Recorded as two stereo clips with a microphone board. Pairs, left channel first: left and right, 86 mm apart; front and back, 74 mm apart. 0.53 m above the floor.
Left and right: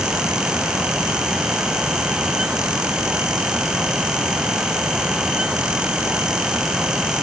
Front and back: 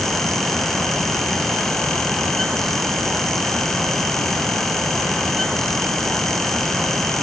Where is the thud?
No thud in this recording.